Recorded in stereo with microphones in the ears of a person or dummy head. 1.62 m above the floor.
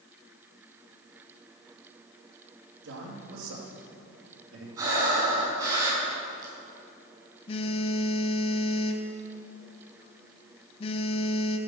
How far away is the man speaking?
About 3.5 m.